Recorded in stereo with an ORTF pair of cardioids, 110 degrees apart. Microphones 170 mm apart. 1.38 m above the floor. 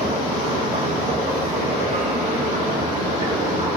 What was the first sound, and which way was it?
A machine running, 40° right.